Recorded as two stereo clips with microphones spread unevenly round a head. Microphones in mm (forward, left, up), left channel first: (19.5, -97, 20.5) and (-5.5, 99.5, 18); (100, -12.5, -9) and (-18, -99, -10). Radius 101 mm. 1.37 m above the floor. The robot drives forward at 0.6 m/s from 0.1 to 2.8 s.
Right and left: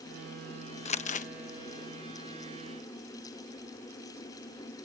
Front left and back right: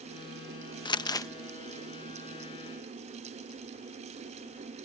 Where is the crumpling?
25° right; by 1.3 s 30° right.